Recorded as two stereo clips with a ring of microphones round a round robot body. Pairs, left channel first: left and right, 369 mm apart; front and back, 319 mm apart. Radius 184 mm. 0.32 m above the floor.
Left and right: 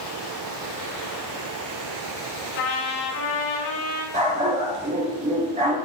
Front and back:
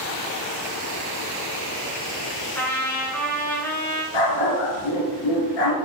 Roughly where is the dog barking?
Ahead.